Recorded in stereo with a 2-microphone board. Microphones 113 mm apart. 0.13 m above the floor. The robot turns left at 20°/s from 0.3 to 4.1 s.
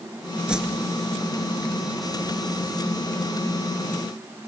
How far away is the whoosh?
About 1.1 m.